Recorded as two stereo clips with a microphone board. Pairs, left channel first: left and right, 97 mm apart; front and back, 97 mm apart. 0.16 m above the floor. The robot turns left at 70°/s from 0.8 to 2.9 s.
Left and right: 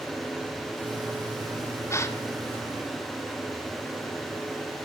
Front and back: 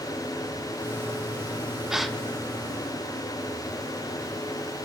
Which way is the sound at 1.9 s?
100° left.